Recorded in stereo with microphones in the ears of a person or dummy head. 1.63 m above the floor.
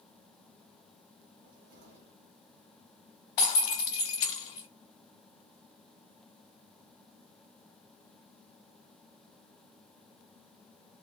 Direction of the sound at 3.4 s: 30° left (ahead or behind).